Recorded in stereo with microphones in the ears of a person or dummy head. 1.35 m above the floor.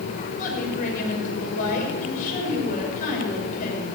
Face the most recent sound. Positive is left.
turn(degrees=45)  # may be behind; listen again after turning